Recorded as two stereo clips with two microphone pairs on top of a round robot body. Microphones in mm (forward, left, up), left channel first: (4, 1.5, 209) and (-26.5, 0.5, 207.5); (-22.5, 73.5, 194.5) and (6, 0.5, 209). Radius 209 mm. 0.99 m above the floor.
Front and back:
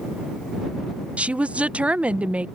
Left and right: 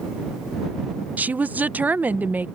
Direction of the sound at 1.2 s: 145° right.